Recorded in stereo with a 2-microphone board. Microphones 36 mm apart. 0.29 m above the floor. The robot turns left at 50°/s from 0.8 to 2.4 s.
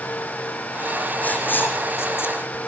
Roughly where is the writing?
Left.